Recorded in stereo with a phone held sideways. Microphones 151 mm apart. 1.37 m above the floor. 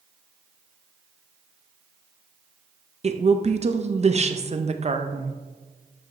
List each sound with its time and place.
3.0 s a woman speaking: 45° right (ahead or behind), 0.5 m